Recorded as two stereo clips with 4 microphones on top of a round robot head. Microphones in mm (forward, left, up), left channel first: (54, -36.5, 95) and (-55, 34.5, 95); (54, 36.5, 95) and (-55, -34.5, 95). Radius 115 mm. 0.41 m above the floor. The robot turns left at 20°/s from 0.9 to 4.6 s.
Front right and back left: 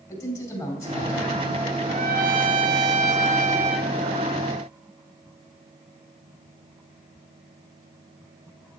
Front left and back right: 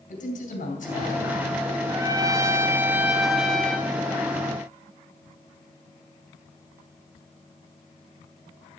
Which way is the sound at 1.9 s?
155° left.